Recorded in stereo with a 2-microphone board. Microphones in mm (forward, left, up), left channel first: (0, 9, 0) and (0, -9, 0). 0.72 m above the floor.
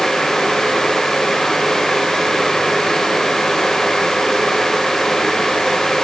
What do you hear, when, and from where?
Only background noise.